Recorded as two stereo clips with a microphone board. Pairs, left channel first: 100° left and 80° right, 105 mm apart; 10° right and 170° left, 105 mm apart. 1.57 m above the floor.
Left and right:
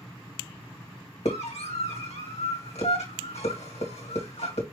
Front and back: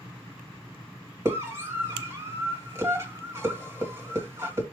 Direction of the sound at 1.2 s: 105° left.